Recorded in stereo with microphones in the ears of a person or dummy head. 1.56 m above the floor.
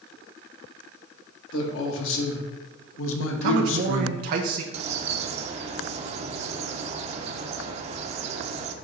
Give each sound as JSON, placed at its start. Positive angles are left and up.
{"t": 1.5, "sound": "a man speaking", "side_deg": 75, "distance_m": 2.0}
{"t": 3.4, "sound": "a man speaking", "side_deg": -50, "distance_m": 1.0}
{"t": 4.7, "sound": "a bird", "side_deg": -40, "distance_m": 0.8}